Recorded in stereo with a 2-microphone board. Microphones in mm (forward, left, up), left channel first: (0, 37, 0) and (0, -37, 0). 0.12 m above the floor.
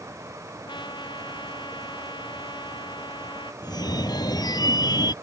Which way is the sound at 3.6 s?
60° left (ahead or behind).